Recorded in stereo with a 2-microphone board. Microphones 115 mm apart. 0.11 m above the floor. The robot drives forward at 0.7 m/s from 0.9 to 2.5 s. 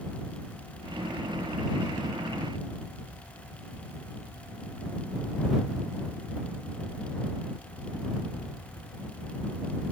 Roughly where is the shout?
No shout in this recording.